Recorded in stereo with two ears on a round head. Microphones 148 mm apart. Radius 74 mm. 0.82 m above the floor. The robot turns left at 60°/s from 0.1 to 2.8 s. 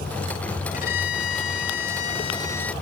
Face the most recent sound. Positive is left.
turn(degrees=5)